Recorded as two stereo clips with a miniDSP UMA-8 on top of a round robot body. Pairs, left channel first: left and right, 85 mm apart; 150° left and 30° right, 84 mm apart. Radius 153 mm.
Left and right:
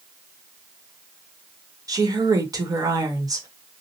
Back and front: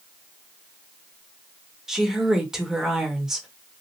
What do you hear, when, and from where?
1.9 s a woman speaking: 115° right, 1.3 m